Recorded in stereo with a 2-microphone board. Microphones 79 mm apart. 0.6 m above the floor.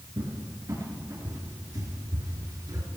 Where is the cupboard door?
50° right (ahead or behind), 3.5 m.